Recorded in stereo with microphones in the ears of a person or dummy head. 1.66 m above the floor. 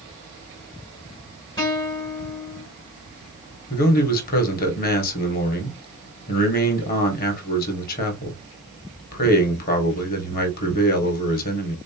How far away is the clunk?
I don't hear a clunk.